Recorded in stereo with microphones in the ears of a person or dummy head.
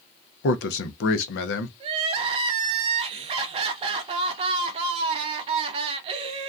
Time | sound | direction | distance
0.4 | a man speaking | 60° left (ahead or behind) | 0.5 m
1.8 | crying | 35° right (ahead or behind) | 0.6 m